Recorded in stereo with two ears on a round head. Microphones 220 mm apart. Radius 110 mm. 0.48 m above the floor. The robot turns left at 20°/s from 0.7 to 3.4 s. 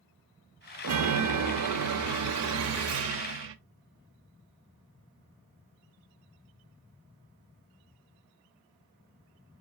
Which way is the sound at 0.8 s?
75° right.